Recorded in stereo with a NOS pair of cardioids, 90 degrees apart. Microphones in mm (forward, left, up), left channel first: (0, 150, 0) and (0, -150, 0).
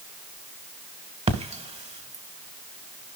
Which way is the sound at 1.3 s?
20° right.